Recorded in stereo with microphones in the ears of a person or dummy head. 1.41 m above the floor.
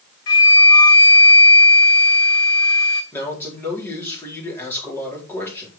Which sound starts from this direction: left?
A flute, at 0.3 s.